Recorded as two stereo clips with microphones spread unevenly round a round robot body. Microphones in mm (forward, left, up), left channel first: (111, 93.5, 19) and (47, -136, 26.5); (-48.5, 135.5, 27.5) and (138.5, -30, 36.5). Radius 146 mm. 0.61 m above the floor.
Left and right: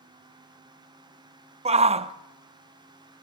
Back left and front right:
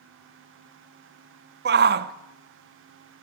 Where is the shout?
55° right, 1.0 m.